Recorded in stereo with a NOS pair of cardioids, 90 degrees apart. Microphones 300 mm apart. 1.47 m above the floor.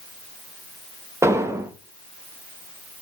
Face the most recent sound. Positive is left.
turn(degrees=-10)